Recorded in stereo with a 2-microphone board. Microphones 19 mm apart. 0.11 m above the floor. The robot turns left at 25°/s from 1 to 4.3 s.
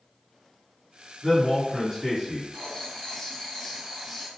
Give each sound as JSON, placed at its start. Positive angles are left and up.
{"t": 1.2, "sound": "a man speaking", "side_deg": -20, "distance_m": 1.5}
{"t": 2.5, "sound": "writing", "azimuth_deg": 55, "distance_m": 0.9}